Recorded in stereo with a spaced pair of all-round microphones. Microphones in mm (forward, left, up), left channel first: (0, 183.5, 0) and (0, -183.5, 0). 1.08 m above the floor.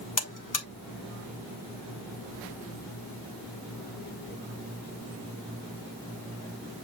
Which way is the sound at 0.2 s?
55° left (ahead or behind).